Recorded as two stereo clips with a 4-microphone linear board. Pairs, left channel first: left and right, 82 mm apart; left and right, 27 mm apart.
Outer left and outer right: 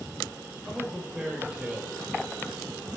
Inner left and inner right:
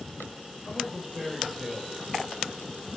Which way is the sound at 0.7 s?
10° right (ahead or behind).